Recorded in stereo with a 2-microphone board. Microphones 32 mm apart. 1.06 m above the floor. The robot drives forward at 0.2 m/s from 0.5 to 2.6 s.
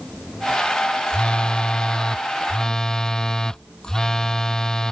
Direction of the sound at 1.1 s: 25° left (ahead or behind).